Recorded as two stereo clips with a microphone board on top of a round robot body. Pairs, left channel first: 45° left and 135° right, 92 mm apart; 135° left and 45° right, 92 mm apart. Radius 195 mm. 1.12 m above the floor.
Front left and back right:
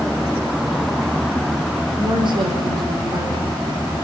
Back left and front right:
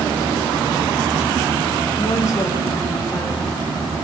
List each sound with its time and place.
2.0 s a woman speaking: 170° right, 5.5 m